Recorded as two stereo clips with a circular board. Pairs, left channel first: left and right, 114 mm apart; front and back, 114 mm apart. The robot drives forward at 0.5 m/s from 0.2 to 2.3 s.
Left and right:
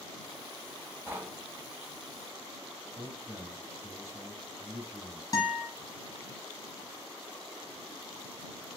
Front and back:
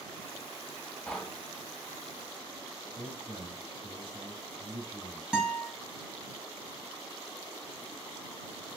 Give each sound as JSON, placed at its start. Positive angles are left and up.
{"t": 1.1, "sound": "knocking", "azimuth_deg": -60, "distance_m": 0.7}
{"t": 3.0, "sound": "a man speaking", "azimuth_deg": -150, "distance_m": 2.5}
{"t": 5.3, "sound": "a guitar", "azimuth_deg": 105, "distance_m": 1.4}